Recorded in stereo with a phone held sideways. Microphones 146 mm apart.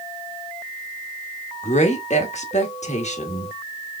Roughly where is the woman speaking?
Left.